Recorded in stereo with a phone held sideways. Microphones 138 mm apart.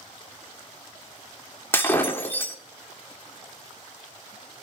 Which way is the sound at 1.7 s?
15° left (ahead or behind).